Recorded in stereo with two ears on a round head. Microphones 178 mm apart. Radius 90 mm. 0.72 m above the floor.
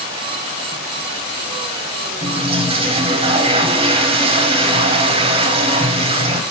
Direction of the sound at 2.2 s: 25° right (ahead or behind).